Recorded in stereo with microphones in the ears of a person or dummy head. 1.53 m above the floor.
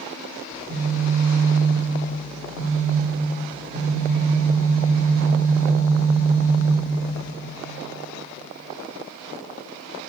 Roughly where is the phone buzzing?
Centre.